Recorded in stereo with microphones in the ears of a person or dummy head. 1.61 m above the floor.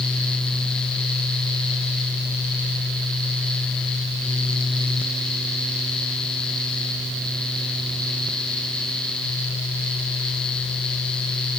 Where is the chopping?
No chopping in this recording.